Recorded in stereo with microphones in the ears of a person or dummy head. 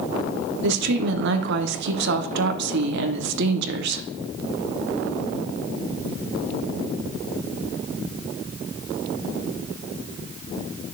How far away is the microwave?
No microwave in this recording.